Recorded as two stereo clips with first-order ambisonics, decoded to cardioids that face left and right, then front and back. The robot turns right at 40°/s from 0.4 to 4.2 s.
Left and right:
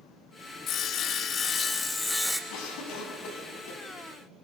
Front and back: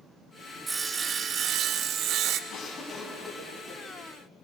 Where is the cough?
55° left, 4.5 m; by 3.8 s 105° left, 4.5 m.